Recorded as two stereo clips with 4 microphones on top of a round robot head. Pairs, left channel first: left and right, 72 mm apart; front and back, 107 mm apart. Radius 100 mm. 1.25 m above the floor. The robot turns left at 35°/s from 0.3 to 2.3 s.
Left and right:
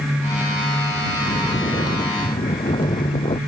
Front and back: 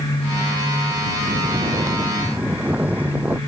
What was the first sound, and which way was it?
Snoring, 145° left.